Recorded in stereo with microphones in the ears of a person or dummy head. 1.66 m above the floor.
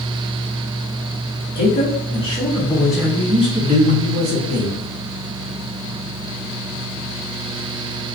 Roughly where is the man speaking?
Left.